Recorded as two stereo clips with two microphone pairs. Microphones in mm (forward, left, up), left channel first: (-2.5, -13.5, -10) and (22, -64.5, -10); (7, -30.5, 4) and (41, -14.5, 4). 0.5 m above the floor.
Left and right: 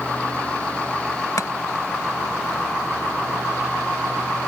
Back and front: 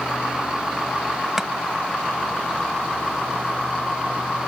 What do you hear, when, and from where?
1.4 s chopping: 100° left